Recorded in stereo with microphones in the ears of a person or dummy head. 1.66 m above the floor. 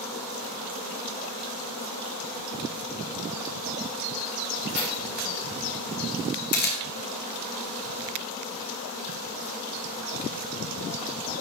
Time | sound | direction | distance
4.7 | keys jangling | 40° left (ahead or behind) | 5 m
6.5 | a camera shutter | 55° left (ahead or behind) | 2 m